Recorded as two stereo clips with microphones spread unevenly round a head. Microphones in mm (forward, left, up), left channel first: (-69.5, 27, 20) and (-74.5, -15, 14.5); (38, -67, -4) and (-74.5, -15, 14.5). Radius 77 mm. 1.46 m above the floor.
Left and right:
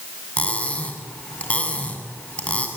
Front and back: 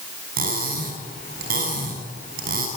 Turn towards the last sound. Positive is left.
turn(degrees=140)